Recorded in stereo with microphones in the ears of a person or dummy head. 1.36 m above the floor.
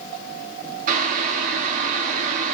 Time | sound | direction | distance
0.9 | boiling | 45° right (ahead or behind) | 1.7 m